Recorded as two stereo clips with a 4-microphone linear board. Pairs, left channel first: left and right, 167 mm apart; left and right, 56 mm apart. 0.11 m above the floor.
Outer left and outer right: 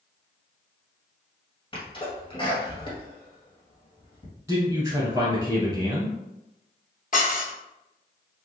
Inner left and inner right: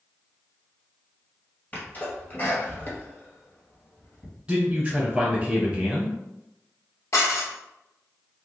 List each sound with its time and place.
1.7 s a sneeze: 30° left (ahead or behind), 1.7 m
4.5 s a man speaking: 15° right (ahead or behind), 1.3 m
7.1 s dishes clattering: 55° left (ahead or behind), 1.4 m